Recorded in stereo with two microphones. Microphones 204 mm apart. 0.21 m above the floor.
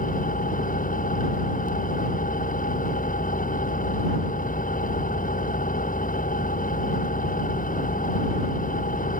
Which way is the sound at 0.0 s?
40° left (ahead or behind).